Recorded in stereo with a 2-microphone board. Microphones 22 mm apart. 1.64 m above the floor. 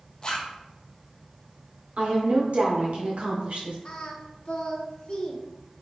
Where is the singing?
40° left (ahead or behind), 0.7 m.